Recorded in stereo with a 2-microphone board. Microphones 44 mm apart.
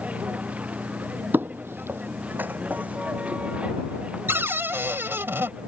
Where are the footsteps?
50° right (ahead or behind); by 4.2 s 25° right (ahead or behind).